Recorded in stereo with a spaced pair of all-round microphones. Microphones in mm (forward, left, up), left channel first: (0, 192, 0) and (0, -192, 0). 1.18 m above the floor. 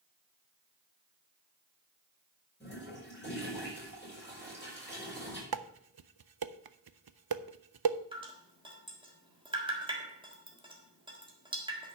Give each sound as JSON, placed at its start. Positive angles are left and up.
{"t": 2.6, "sound": "a toilet flushing", "side_deg": 30, "distance_m": 6.0}
{"t": 5.5, "sound": "dishes clattering", "side_deg": -75, "distance_m": 0.5}
{"t": 8.1, "sound": "dripping", "side_deg": -15, "distance_m": 1.7}